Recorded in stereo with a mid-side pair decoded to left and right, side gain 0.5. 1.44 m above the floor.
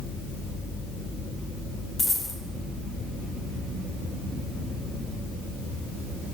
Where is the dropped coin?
30° left, 2.5 m.